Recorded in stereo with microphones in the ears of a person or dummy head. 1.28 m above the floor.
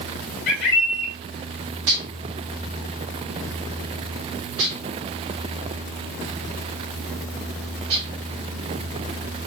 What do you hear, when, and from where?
0.5 s a bird: 55° left (ahead or behind), 1.2 m
1.9 s dishes clattering: 80° right, 3 m